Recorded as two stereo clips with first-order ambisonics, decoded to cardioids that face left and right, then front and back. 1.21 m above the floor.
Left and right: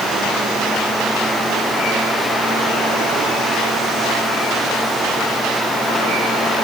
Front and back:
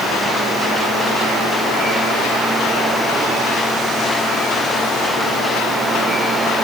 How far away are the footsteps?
No footsteps in this recording.